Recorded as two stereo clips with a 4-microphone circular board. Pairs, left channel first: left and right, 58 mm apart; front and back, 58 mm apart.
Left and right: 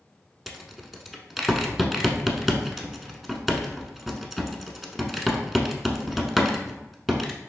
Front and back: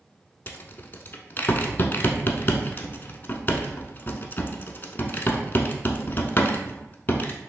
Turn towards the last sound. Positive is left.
turn(degrees=-5)